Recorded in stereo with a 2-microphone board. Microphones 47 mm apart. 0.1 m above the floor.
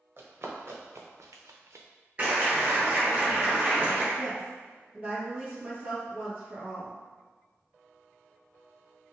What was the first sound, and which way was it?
Running footsteps, 45° right (ahead or behind).